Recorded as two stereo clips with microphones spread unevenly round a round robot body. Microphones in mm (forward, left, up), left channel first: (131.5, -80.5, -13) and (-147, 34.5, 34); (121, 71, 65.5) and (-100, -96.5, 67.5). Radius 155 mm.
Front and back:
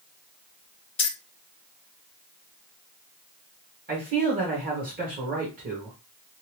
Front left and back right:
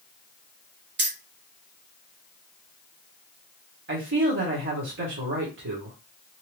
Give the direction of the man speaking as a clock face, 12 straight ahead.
5 o'clock.